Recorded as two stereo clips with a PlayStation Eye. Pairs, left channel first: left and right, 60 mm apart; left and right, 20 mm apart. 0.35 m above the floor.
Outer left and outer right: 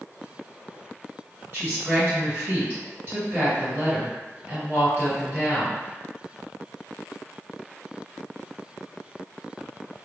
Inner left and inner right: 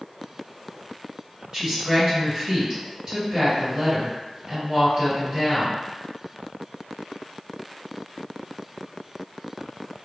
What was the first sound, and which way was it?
A woman speaking, 50° right (ahead or behind).